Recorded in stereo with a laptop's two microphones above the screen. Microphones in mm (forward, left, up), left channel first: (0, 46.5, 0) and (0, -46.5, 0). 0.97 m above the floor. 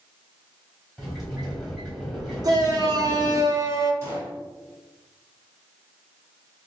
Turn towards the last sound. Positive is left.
turn(degrees=-30)  # may be behind; listen again after turning